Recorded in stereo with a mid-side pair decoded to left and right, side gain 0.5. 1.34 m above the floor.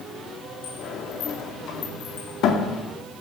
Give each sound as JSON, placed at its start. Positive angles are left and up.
{"t": 0.6, "sound": "a sliding door", "azimuth_deg": 70, "distance_m": 2.0}